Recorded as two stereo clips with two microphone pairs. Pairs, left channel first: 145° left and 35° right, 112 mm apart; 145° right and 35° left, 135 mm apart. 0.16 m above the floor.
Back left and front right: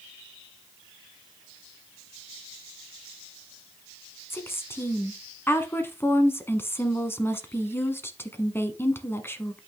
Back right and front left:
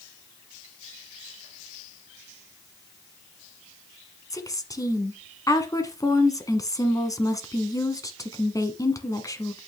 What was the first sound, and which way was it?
A woman speaking, 175° right.